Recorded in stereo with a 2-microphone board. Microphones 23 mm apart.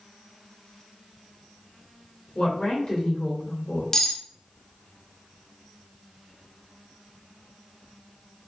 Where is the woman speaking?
40° left (ahead or behind), 1.5 m.